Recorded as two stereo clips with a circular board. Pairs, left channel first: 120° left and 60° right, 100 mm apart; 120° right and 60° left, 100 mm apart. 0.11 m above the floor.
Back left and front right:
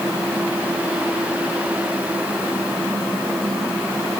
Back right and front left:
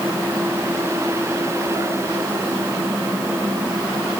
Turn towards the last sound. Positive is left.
No sound to turn to.